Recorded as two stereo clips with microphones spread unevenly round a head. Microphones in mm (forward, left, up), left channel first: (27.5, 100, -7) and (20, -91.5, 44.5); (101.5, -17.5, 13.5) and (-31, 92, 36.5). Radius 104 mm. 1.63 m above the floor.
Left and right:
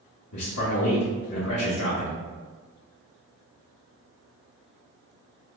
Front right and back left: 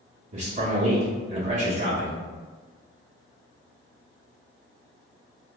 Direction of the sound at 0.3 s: 110° left.